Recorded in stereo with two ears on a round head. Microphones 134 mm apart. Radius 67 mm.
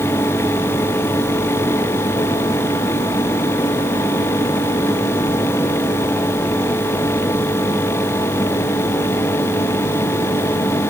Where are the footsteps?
I don't hear footsteps.